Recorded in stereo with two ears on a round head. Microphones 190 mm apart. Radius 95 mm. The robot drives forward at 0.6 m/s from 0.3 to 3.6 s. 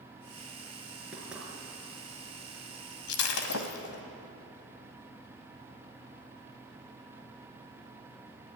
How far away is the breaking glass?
About 2.5 m.